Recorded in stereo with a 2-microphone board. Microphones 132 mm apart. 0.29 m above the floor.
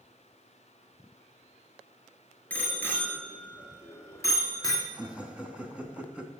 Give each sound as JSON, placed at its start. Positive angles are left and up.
{"t": 2.5, "sound": "a bicycle bell", "side_deg": 10, "distance_m": 3.5}
{"t": 4.9, "sound": "laughter", "side_deg": -10, "distance_m": 3.0}